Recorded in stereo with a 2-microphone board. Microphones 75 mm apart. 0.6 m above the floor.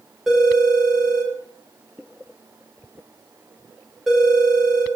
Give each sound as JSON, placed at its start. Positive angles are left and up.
{"t": 0.3, "sound": "a phone ringing", "side_deg": -5, "distance_m": 1.0}